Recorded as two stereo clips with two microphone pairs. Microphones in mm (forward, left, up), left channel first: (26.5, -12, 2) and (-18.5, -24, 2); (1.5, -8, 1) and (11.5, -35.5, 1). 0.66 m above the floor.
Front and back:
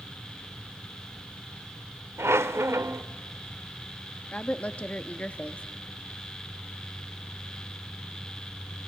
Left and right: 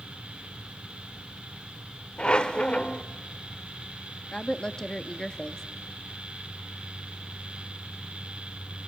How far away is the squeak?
About 0.8 m.